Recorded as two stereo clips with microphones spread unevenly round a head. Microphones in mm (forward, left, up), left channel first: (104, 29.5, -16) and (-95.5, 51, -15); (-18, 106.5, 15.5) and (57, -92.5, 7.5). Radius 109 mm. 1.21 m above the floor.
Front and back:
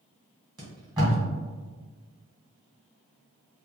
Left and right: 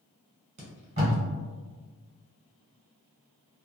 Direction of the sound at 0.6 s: 120° right.